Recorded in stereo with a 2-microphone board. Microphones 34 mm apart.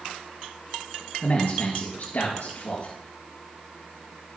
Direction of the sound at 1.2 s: 55° left (ahead or behind).